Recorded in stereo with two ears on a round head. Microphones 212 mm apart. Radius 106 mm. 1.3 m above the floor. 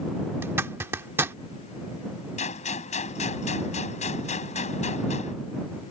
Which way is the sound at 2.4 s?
30° left (ahead or behind).